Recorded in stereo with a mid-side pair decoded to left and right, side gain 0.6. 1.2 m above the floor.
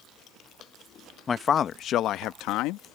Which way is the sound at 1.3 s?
30° left.